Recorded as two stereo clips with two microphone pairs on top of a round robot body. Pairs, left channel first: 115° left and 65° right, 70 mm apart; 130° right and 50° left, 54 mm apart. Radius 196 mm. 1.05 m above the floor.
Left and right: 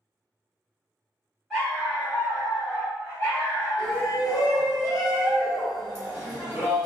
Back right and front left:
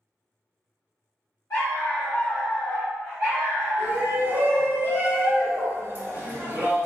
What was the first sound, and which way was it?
A dog barking, 160° right.